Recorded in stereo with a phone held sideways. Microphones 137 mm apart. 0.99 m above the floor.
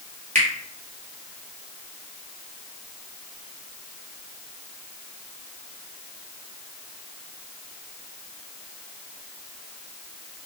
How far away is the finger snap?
About 1.1 m.